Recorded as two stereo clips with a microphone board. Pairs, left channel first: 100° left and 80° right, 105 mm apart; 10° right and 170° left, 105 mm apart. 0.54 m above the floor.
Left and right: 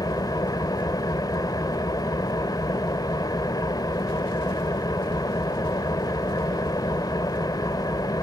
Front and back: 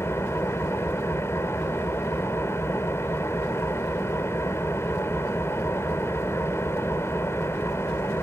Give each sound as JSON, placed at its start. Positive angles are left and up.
{"t": 0.0, "sound": "an engine running", "azimuth_deg": 50, "distance_m": 1.4}